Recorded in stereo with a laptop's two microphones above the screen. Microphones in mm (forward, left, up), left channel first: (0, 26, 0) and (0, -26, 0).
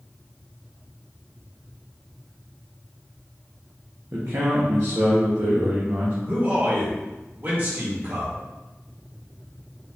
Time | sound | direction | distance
4.1 | a man speaking | 55° right (ahead or behind) | 1.0 m
6.3 | a man speaking | 40° right (ahead or behind) | 1.3 m